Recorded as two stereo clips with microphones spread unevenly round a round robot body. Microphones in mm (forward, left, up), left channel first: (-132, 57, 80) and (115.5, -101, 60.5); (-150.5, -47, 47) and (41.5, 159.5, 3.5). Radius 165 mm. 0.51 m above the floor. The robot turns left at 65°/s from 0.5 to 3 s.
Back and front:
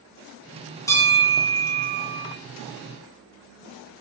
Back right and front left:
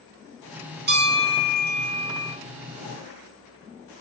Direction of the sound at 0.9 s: 70° left.